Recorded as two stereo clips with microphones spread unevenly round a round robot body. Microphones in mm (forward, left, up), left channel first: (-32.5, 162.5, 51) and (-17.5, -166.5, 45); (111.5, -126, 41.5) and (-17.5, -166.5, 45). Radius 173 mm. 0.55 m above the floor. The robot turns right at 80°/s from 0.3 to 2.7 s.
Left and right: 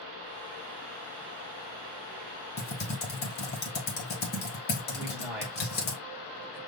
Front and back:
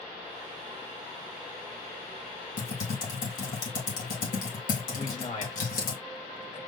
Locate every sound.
2.6 s typing on a keyboard: 20° left, 1.7 m; by 5.9 s 30° left, 1.7 m
4.9 s a man speaking: straight ahead, 2 m